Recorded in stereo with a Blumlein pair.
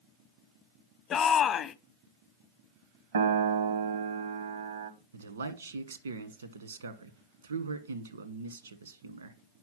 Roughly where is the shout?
Ahead left.